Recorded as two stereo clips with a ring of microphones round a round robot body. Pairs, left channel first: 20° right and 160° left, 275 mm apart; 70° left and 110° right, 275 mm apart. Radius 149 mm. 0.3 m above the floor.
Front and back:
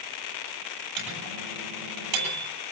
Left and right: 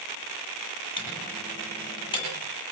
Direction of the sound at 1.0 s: 140° left.